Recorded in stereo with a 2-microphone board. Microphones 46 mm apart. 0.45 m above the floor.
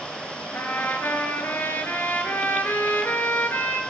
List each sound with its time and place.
0.5 s a trumpet: 50° left (ahead or behind), 1.8 m